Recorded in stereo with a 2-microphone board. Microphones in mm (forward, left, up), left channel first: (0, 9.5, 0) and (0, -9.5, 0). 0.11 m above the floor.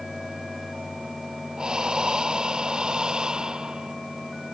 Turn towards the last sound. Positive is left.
turn(degrees=-45)  # may be behind; listen again after turning